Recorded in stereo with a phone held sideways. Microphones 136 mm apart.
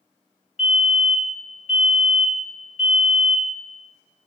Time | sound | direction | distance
0.6 | a fire alarm | 55° left (ahead or behind) | 3 m